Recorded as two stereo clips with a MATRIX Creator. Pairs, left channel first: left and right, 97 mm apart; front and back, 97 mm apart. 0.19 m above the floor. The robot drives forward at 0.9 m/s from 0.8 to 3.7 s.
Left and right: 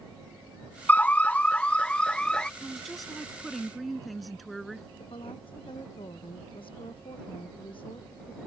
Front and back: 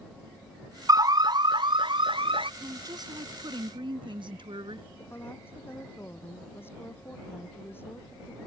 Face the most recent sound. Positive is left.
turn(degrees=65)